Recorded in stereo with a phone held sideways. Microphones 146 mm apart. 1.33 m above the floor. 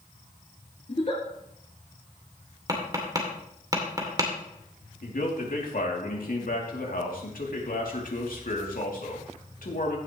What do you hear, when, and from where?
0.9 s a giggle: 45° left (ahead or behind), 3.5 m
2.7 s tapping: 25° right (ahead or behind), 2.5 m
5.0 s a man speaking: 80° left, 2.5 m